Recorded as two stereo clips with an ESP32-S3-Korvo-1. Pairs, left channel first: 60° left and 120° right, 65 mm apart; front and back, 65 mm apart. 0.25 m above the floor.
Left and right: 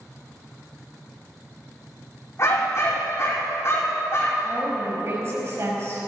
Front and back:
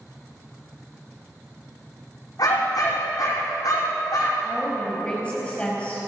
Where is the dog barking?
20° left, 5.5 m.